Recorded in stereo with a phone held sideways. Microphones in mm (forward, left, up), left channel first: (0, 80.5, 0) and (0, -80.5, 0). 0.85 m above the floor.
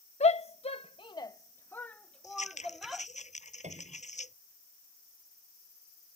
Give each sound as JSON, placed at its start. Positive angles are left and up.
{"t": 0.2, "sound": "a shout", "side_deg": 40}
{"t": 2.2, "sound": "scissors", "side_deg": 45}
{"t": 3.6, "sound": "a piano", "side_deg": -45}